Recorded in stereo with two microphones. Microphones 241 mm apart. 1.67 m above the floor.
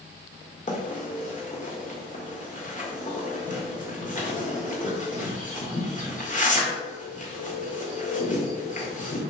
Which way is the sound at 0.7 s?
35° left (ahead or behind).